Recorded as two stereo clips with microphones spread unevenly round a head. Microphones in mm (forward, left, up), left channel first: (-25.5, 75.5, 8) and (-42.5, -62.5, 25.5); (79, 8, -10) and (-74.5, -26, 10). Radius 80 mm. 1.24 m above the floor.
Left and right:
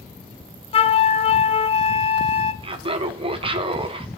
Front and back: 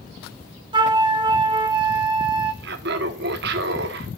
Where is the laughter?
150° right, 1.1 m.